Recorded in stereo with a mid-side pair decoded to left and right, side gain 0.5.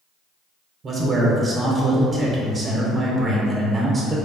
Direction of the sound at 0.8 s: 40° right.